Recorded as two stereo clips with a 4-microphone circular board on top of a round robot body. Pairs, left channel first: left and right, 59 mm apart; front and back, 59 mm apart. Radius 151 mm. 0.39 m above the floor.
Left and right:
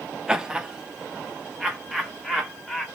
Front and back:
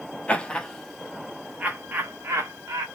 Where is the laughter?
30° right, 1.1 m; by 2.9 s straight behind, 1.5 m.